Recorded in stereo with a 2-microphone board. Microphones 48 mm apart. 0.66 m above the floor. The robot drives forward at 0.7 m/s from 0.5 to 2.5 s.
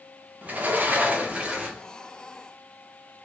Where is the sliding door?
35° right (ahead or behind), 0.6 m; by 1.9 s 20° right (ahead or behind), 1.0 m.